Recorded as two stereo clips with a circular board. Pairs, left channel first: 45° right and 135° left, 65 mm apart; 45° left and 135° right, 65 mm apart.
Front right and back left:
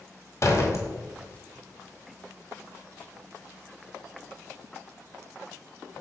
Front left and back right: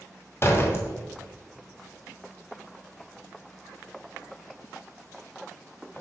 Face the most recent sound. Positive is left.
turn(degrees=-5)